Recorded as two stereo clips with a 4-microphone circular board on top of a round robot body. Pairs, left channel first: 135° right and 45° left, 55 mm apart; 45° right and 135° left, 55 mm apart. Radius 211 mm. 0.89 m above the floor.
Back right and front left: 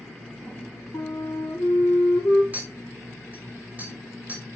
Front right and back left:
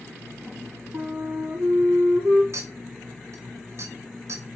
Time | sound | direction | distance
0.9 | a flute | 175° right | 0.5 m
2.5 | a clink | 105° left | 4 m